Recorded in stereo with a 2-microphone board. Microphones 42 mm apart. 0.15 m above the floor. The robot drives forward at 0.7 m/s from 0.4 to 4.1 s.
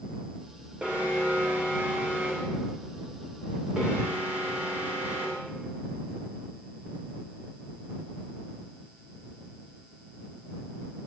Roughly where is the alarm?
Right.